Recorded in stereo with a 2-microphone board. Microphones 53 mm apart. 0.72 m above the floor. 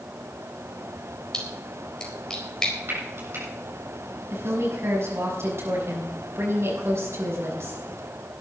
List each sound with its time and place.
1.3 s a splash: 15° left (ahead or behind), 4 m
2.9 s frying: 50° right (ahead or behind), 7.5 m
4.3 s a woman speaking: 55° right (ahead or behind), 6.5 m